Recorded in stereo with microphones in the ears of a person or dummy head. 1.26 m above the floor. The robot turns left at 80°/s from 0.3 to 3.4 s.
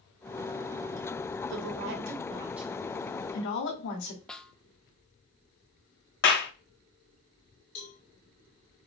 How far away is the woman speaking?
About 2 m.